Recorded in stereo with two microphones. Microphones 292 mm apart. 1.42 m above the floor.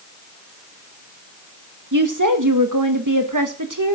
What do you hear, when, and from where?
1.9 s a woman speaking: 80° right, 1.7 m